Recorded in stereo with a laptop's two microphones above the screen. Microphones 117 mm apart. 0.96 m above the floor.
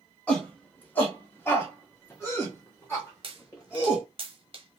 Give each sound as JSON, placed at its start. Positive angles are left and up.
{"t": 0.3, "sound": "a shout", "side_deg": 10, "distance_m": 1.1}
{"t": 3.2, "sound": "a pop", "side_deg": -45, "distance_m": 0.8}